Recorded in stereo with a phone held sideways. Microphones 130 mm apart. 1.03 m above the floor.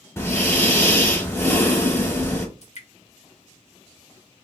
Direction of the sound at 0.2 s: 20° left (ahead or behind).